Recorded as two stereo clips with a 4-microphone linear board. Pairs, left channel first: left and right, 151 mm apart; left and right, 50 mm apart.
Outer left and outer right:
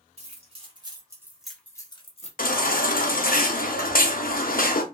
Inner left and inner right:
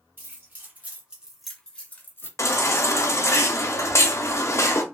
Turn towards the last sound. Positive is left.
turn(degrees=75)  # may be behind; listen again after turning